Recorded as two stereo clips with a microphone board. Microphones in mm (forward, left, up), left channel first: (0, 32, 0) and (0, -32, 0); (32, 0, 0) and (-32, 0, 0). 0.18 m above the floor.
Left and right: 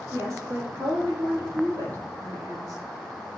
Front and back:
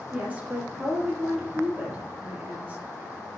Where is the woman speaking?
110° right, 5 m.